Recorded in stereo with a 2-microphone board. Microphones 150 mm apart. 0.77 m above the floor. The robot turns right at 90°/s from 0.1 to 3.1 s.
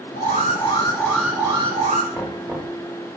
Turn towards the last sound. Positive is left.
turn(degrees=-120)